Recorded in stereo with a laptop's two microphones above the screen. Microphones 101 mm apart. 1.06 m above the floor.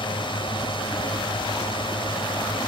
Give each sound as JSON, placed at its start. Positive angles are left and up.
{"t": 0.0, "sound": "a drone", "side_deg": 55}